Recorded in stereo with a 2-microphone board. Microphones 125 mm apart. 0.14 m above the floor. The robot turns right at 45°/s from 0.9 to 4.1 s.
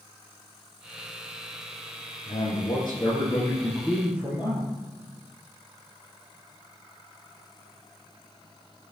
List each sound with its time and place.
2.3 s a man speaking: 110° left, 3 m; by 4.7 s 170° right, 3 m